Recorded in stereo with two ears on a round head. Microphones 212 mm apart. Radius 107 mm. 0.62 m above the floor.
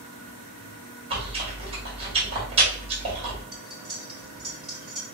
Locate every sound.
1.1 s chewing: 25° right (ahead or behind), 1.8 m
3.5 s cutlery clinking: centre (ahead or behind), 1.9 m